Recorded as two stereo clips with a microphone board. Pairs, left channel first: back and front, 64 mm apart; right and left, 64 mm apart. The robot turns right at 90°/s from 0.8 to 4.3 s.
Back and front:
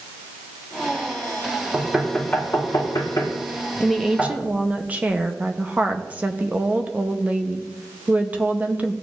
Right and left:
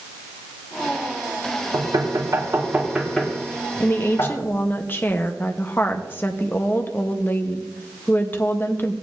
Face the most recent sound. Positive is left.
turn(degrees=-55)